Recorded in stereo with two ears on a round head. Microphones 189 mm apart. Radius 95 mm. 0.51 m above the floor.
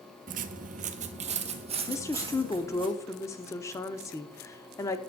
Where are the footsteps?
40° right (ahead or behind), 0.6 m; by 2.9 s 25° right (ahead or behind), 1.8 m.